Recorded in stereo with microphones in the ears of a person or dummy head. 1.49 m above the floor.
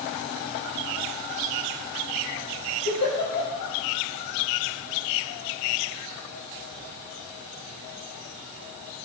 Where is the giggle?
60° left (ahead or behind), 5.5 m.